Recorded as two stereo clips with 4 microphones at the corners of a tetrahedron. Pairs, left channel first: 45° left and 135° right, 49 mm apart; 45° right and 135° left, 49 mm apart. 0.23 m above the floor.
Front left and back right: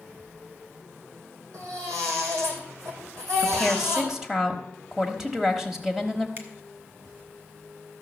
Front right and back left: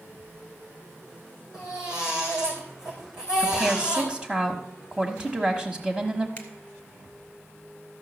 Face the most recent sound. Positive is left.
turn(degrees=-100)